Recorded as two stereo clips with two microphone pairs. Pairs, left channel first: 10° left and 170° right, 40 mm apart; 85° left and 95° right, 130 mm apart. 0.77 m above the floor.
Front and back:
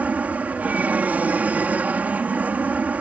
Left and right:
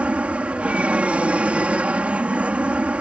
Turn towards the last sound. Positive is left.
turn(degrees=-170)